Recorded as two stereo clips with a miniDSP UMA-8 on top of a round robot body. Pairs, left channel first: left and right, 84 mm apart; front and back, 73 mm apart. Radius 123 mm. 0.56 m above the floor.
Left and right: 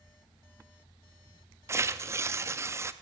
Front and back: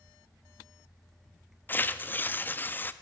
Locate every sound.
1.7 s tearing paper: 50° right, 0.6 m